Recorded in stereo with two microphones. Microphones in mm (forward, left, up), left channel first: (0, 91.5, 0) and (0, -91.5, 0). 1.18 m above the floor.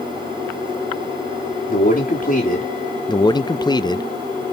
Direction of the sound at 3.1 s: 25° left (ahead or behind).